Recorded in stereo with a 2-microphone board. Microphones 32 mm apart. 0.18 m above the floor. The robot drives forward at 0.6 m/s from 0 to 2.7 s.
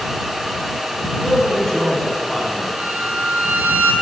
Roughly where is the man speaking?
Centre.